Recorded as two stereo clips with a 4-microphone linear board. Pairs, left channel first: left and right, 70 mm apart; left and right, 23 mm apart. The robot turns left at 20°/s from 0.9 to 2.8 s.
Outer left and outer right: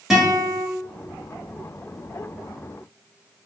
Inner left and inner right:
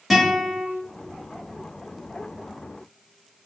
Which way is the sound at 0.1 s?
5° right (ahead or behind).